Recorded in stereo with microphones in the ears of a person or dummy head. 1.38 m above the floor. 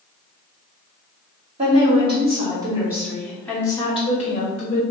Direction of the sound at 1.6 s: 35° right (ahead or behind).